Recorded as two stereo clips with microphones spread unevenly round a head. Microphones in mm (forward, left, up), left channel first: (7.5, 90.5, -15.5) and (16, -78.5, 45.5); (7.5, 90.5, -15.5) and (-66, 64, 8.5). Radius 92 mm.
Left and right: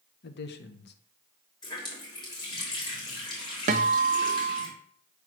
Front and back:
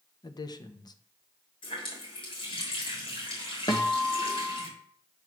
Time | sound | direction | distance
0.2 | a man speaking | 60° left | 1.0 m
1.6 | a running tap | 20° left | 3.5 m
3.7 | a guitar | 45° right | 0.7 m